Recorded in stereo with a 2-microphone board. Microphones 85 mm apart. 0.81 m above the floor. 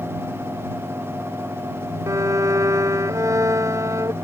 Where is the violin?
35° right (ahead or behind).